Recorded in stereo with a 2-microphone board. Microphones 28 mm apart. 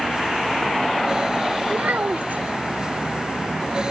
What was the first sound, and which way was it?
A child speaking, 80° right.